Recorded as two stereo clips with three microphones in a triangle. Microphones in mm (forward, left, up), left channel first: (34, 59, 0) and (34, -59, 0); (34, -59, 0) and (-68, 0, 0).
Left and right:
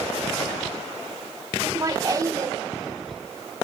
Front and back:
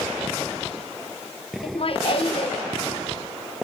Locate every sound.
1.6 s laughter: 35° right, 0.9 m